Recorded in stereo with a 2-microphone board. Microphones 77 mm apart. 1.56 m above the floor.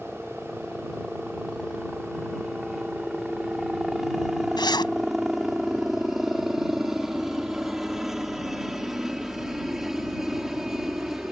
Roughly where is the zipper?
Left.